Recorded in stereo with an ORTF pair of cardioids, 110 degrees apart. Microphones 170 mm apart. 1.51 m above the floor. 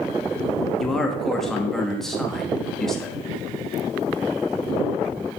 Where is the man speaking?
Straight ahead, 1.9 m.